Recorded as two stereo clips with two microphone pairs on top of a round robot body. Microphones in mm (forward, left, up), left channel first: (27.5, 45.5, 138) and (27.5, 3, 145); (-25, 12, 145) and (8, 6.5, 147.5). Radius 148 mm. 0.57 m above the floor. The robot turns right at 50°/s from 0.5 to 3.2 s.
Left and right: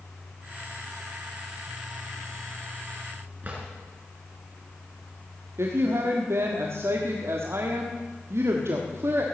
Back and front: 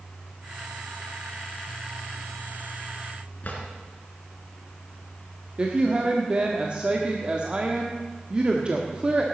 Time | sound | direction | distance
3.4 | a drawer | 145° right | 3.5 m
5.6 | a woman speaking | 75° right | 1.6 m